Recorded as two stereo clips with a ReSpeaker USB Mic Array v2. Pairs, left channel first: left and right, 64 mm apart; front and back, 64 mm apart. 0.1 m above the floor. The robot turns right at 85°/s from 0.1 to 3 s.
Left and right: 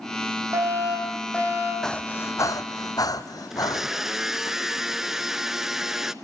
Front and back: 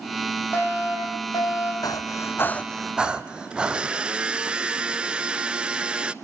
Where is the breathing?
5° left, 1.2 m; by 4.5 s 105° left, 1.2 m.